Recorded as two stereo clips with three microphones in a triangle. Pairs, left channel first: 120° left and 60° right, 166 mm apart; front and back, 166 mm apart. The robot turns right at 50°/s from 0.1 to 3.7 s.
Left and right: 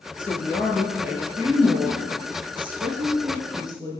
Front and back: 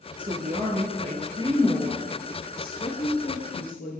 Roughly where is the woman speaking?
Behind.